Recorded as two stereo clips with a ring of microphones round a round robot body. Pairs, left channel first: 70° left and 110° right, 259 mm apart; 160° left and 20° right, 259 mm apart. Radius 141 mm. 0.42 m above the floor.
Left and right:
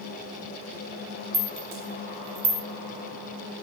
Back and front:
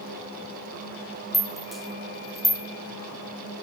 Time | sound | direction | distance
1.3 | a rattle | 115° right | 1.5 m